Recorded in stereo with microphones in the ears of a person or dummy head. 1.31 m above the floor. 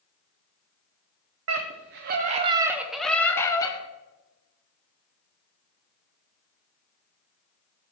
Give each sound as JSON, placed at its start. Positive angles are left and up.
{"t": 1.5, "sound": "a scream", "side_deg": -75, "distance_m": 0.7}